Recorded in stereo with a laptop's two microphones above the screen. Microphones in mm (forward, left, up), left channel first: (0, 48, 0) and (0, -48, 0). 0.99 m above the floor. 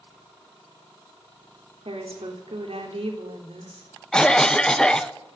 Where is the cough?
10° left (ahead or behind), 0.7 m.